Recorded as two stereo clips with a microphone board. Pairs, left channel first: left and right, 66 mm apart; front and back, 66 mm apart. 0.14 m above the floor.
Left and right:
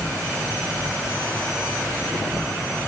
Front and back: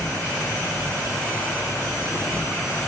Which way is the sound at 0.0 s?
5° right.